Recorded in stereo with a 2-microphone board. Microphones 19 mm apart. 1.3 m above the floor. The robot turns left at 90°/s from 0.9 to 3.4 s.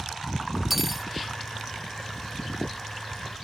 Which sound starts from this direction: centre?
Cutlery clinking, at 0.7 s.